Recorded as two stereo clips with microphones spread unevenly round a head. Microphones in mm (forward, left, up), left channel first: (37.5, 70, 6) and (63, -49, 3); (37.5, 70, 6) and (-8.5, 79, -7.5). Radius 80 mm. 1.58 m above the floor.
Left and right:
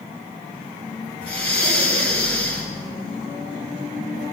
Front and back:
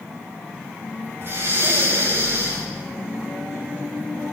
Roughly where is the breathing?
Behind left.